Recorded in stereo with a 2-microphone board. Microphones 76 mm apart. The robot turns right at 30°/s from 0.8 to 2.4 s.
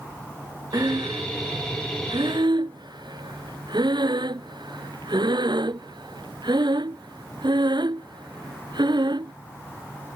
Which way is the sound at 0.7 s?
55° right (ahead or behind).